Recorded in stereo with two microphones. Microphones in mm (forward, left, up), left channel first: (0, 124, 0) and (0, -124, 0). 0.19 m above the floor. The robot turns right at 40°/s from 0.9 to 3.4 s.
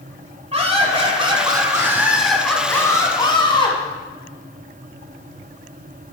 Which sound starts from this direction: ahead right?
Laughter, at 0.5 s.